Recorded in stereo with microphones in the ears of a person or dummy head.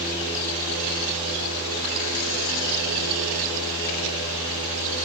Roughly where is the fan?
Left.